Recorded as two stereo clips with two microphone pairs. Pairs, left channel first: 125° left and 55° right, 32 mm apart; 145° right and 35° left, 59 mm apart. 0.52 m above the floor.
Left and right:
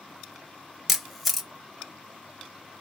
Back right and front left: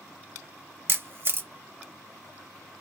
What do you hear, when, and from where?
0.9 s a camera shutter: 30° left, 0.5 m